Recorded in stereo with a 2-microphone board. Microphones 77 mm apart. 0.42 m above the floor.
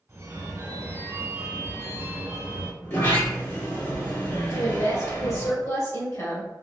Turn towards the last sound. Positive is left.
turn(degrees=45)  # may be behind; listen again after turning